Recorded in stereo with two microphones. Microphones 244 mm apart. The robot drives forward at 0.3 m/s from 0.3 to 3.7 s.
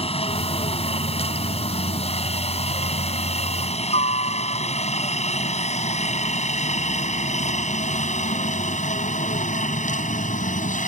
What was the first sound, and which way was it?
A helicopter, 25° left (ahead or behind).